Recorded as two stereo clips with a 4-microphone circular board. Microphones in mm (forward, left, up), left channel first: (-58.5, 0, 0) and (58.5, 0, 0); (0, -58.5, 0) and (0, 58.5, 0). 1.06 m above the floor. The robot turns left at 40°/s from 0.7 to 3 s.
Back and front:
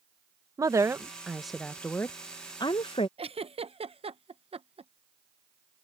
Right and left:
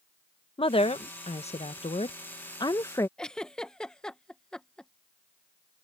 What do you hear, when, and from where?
0.6 s a woman speaking: 60° right; by 3.1 s 150° right
3.2 s a giggle: 10° right